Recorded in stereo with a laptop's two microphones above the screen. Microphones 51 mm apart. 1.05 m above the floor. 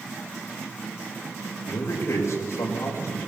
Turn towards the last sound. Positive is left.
turn(degrees=80)